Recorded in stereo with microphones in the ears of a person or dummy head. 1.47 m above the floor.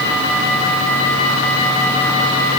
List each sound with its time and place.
Only background noise.